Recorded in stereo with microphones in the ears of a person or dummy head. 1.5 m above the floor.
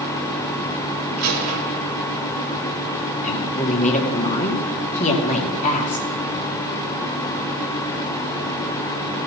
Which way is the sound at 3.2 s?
45° left (ahead or behind).